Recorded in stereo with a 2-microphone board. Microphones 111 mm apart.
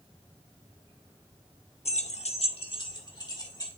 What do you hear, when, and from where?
1.9 s keys jangling: 65° left (ahead or behind), 0.6 m; by 3.7 s 35° left (ahead or behind), 2 m